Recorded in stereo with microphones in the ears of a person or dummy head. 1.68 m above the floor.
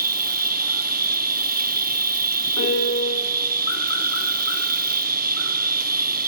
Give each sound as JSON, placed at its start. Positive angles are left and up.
{"t": 0.0, "sound": "an insect", "side_deg": -50, "distance_m": 0.8}
{"t": 2.6, "sound": "a piano", "side_deg": 70, "distance_m": 10.0}